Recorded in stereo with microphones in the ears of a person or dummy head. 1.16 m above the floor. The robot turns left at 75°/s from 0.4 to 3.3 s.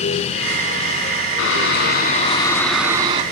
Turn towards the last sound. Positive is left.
turn(degrees=-40)